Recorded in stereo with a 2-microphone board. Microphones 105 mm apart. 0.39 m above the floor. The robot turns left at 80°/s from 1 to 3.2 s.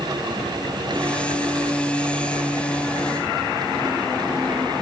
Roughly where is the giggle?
No giggle in this recording.